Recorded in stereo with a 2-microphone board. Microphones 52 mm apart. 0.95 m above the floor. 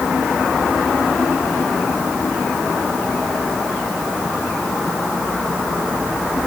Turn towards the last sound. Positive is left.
No sound to turn to.